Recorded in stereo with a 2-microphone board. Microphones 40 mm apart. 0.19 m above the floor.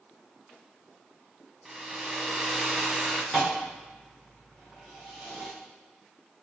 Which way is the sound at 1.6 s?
5° right (ahead or behind).